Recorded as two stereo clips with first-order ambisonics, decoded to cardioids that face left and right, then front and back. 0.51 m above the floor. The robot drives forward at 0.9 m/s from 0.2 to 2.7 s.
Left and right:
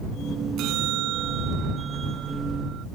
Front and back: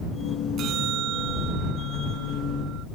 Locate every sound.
0.6 s a bell: 130° right; by 2.9 s 140° right